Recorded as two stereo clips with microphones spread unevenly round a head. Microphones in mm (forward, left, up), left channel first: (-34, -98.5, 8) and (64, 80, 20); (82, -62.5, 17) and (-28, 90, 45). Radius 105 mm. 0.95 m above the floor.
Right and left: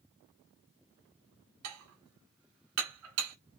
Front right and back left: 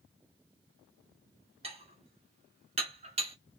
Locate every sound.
1.6 s dishes clattering: 70° left, 1.6 m